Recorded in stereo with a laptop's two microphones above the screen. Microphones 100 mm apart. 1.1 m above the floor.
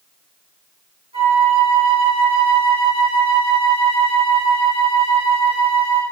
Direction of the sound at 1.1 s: 75° right (ahead or behind).